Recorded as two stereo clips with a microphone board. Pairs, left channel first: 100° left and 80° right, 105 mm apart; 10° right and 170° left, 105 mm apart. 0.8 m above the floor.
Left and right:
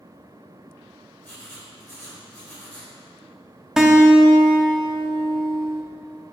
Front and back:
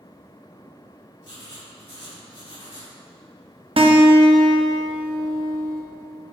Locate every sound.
1.2 s writing: 30° left, 2 m
3.8 s a guitar: 165° right, 0.9 m